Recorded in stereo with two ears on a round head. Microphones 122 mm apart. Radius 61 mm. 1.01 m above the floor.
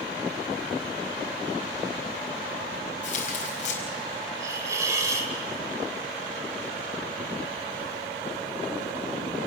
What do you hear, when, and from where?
3.0 s tearing paper: 55° left (ahead or behind), 4.5 m
4.4 s a hiss: 25° right (ahead or behind), 2.5 m